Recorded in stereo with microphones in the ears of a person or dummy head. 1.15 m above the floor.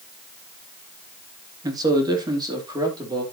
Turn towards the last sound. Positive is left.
turn(degrees=-25)  # may be behind; listen again after turning